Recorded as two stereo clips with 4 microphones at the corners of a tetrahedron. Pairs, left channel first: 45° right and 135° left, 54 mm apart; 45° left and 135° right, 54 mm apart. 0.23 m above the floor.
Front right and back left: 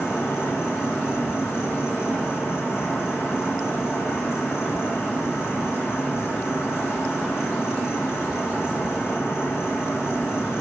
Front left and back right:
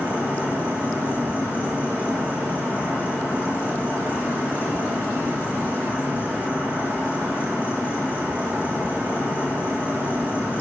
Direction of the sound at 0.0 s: 10° right.